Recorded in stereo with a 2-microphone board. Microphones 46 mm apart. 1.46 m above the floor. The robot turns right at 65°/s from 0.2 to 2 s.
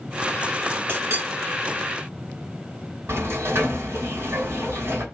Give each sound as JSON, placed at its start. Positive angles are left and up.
{"t": 0.9, "sound": "a clink", "side_deg": -50, "distance_m": 1.7}
{"t": 3.1, "sound": "a sliding door", "side_deg": -75, "distance_m": 3.0}